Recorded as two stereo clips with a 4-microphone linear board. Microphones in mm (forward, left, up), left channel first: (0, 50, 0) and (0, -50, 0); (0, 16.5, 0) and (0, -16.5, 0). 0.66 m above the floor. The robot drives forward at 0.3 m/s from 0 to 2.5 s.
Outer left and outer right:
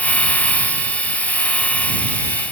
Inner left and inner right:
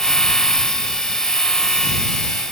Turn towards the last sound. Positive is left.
No sound to turn to.